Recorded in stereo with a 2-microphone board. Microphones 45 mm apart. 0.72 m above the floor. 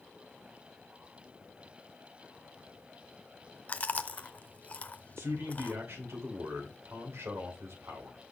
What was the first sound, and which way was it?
Chewing, 35° left (ahead or behind).